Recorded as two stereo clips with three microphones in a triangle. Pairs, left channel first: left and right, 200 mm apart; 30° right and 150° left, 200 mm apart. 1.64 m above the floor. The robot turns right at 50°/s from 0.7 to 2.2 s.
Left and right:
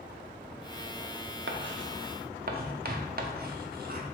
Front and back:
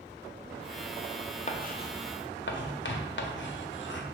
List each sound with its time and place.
1.5 s writing: 85° right, 0.5 m; by 4.0 s 50° right, 0.5 m